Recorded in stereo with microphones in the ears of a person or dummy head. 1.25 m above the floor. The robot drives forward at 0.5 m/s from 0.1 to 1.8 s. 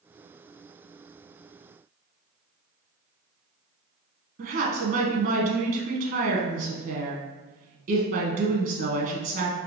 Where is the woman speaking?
45° right (ahead or behind), 0.6 m.